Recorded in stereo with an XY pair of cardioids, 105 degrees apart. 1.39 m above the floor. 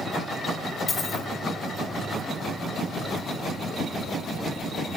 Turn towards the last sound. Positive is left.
turn(degrees=40)